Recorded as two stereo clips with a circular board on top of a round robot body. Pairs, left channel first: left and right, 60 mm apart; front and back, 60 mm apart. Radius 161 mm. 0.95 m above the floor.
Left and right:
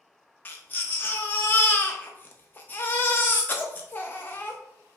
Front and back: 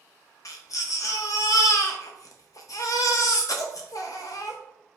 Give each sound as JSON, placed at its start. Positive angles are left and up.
{"t": 0.5, "sound": "a baby crying", "azimuth_deg": 30, "distance_m": 0.5}